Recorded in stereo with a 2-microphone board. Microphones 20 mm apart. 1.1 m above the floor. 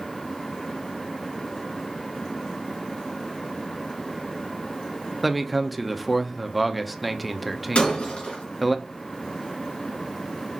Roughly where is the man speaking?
Centre.